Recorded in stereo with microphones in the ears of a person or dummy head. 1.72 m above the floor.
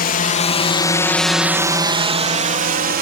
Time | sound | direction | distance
0.0 | a drone | 45° left (ahead or behind) | ?